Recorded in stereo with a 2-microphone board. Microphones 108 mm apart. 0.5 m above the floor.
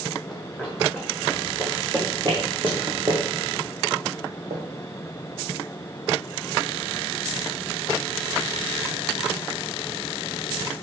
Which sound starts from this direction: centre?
Running footsteps, at 0.3 s.